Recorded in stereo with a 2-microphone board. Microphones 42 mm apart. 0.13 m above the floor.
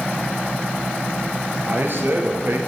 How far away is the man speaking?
About 2.5 m.